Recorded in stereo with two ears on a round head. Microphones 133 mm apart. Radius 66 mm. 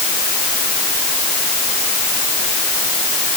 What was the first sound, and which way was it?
Only background noise.